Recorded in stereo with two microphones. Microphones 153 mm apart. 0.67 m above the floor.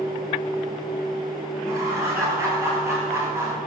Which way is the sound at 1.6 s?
20° right (ahead or behind).